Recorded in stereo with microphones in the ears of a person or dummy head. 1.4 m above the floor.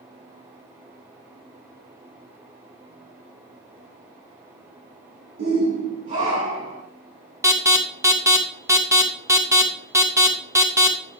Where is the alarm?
10° right (ahead or behind), 0.7 m.